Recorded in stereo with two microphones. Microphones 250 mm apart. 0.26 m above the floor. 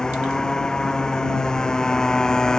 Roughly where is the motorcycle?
Centre.